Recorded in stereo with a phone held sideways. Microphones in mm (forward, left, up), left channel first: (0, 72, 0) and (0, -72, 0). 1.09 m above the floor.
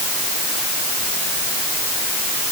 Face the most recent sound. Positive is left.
No sound to turn to.